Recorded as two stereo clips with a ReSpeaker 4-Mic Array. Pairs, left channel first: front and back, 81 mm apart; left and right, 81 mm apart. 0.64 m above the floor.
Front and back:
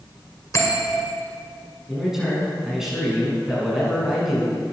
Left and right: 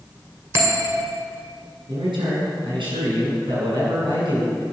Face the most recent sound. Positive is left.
turn(degrees=-95)